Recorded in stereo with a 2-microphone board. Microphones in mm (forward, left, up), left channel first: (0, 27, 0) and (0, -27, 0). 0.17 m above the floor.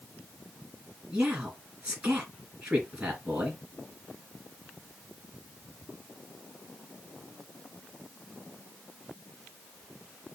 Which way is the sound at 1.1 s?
25° right (ahead or behind).